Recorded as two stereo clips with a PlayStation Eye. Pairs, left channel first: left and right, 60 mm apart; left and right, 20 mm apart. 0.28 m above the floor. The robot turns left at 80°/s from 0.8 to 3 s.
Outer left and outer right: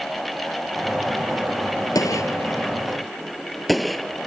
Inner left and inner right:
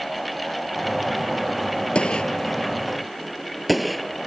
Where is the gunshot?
80° left; by 4.2 s centre (ahead or behind).